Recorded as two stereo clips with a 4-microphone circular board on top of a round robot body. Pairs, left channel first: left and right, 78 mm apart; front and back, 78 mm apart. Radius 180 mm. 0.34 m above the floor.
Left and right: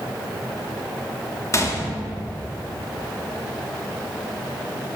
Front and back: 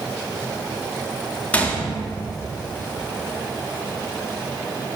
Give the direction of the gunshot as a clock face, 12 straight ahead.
10 o'clock.